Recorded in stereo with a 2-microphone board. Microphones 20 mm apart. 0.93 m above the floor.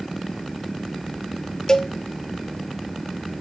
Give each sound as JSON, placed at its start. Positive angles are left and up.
{"t": 1.7, "sound": "a cowbell", "side_deg": 35, "distance_m": 0.9}